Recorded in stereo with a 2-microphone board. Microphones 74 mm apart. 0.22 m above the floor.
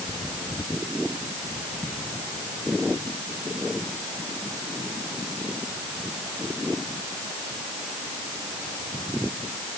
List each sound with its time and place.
Only background noise.